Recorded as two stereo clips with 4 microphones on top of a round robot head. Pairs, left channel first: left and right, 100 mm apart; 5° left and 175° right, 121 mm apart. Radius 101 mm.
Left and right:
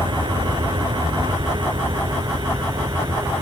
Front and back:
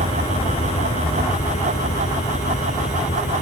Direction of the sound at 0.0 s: 50° right.